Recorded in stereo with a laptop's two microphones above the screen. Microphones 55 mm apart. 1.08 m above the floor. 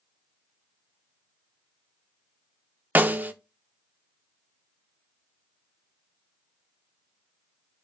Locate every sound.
3.0 s a snare drum: 35° right (ahead or behind), 0.8 m